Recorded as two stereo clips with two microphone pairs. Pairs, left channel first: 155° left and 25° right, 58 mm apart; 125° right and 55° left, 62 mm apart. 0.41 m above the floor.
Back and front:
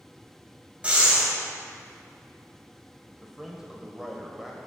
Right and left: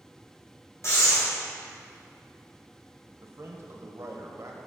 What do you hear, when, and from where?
0.8 s breathing: 95° right, 2.5 m
3.2 s a man speaking: 55° left, 1.4 m